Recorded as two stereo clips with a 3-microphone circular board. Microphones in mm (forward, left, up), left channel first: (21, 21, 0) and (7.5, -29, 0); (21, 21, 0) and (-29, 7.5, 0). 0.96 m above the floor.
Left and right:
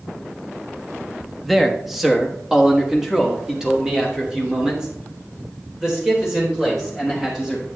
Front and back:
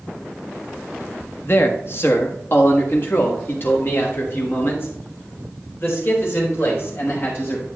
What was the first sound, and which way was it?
A man speaking, 15° right.